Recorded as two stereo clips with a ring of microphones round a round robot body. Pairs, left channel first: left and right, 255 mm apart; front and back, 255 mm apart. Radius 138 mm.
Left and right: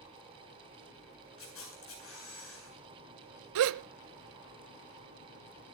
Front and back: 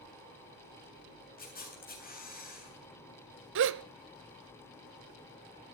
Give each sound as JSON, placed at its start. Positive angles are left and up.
{"t": 1.4, "sound": "a camera shutter", "azimuth_deg": 55, "distance_m": 8.5}
{"t": 3.5, "sound": "a gasp", "azimuth_deg": -130, "distance_m": 0.7}